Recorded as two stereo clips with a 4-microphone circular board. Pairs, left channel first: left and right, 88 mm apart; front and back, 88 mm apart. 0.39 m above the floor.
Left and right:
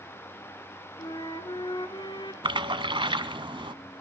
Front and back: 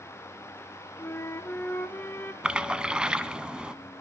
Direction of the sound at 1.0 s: 65° left.